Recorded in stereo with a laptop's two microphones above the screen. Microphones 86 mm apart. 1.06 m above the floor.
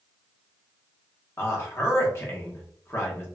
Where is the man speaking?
30° left (ahead or behind), 1.1 m.